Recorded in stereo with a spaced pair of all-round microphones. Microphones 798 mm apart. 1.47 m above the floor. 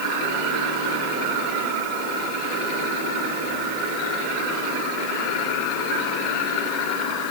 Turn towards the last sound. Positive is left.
No sound to turn to.